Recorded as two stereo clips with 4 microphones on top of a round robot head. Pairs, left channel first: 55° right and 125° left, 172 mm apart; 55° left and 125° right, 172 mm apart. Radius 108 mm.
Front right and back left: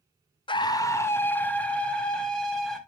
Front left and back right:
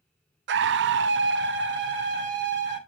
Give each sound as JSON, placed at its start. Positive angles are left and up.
{"t": 0.5, "sound": "a scream", "azimuth_deg": -120, "distance_m": 0.5}